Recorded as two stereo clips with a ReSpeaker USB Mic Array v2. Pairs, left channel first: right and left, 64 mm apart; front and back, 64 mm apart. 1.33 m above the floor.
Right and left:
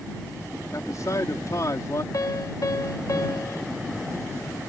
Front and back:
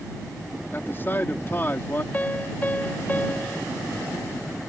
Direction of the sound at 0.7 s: 55° right.